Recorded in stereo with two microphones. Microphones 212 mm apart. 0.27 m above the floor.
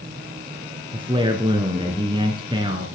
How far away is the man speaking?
About 3 m.